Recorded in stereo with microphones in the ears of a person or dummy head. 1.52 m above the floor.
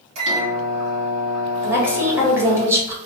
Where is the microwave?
35° right (ahead or behind), 2.0 m.